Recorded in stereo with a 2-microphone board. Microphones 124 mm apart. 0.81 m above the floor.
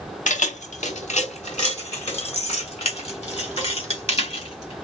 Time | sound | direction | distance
0.3 | keys jangling | 80° left | 0.7 m